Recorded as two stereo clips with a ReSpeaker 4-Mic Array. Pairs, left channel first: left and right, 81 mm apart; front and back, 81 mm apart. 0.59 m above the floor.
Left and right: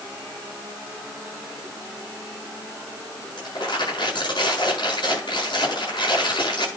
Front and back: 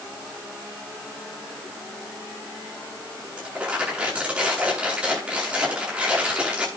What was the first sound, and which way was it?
Crumpling, 105° left.